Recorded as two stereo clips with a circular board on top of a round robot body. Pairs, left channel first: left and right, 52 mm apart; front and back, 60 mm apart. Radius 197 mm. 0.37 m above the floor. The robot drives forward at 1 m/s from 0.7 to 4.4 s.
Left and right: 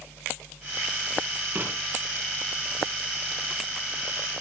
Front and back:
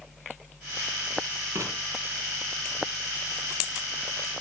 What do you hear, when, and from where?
1.6 s writing: 145° right, 8 m